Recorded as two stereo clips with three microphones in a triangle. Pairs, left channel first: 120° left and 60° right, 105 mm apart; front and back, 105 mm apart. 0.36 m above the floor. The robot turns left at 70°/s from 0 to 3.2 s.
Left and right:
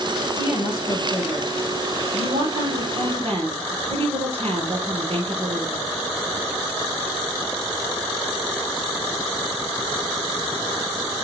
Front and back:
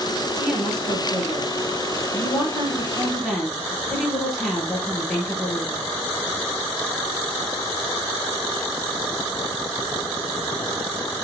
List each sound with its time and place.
0.3 s a woman speaking: 115° left, 6 m; by 5.9 s 85° right, 6 m